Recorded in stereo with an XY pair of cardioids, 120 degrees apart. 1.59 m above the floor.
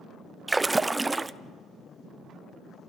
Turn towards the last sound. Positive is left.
turn(degrees=-15)